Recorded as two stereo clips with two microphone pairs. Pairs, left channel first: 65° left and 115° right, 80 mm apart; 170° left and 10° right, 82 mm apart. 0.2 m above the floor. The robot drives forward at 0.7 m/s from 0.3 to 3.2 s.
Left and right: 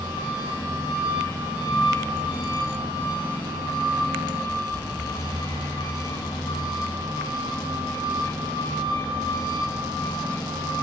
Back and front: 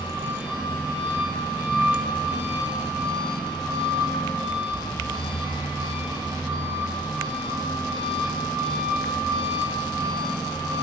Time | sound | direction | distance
0.0 | an engine running | 60° left | 9.5 m